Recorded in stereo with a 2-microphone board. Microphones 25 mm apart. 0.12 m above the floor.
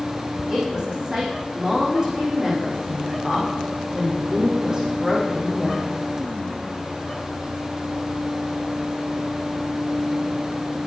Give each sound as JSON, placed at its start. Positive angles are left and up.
{"t": 0.5, "sound": "a woman speaking", "side_deg": -25, "distance_m": 7.0}